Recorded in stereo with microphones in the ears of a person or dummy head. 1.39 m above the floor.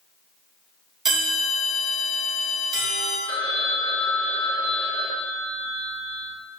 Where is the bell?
Centre (ahead or behind), 2.5 m.